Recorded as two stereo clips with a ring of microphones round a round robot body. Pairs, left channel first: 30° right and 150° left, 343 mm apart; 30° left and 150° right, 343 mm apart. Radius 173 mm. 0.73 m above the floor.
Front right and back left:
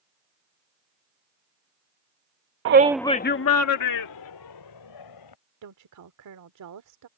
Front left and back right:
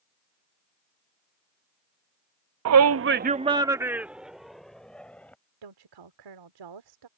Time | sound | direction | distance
2.6 | a shout | 175° right | ?
5.6 | a woman speaking | 170° right | ?